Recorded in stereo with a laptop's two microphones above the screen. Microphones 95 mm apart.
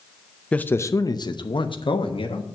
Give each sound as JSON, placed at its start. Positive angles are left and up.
{"t": 0.5, "sound": "a man speaking", "side_deg": 10, "distance_m": 0.5}